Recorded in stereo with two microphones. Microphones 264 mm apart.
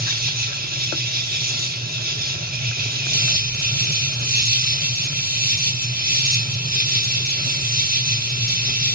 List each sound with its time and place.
0.0 s an insect: 35° right (ahead or behind), 1.3 m